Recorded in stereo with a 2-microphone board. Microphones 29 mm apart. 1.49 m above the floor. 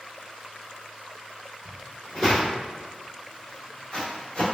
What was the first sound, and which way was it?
Footsteps, 10° left (ahead or behind).